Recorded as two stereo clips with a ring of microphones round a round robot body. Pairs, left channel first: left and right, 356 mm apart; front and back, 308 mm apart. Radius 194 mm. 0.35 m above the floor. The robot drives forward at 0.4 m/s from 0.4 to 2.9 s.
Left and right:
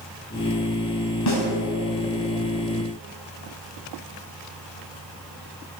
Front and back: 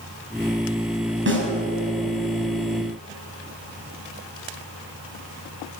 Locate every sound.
1.3 s a snare drum: 130° left, 5.5 m